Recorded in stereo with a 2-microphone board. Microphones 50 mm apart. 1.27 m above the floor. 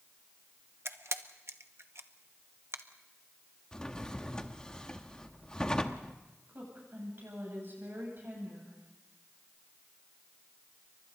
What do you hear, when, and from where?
0.8 s a camera shutter: 60° right (ahead or behind), 1.0 m
3.7 s a drawer: 15° left (ahead or behind), 1.1 m
6.5 s a woman speaking: 50° right (ahead or behind), 9.5 m